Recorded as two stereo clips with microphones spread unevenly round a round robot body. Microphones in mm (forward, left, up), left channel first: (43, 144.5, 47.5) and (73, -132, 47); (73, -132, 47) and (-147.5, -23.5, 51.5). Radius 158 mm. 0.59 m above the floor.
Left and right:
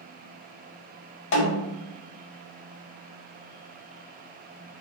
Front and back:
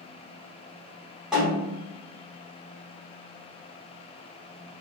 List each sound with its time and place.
1.3 s a snare drum: 70° left, 0.6 m